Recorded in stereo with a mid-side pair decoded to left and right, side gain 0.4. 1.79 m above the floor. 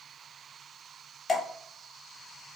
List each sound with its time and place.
1.3 s dripping: 40° left, 0.9 m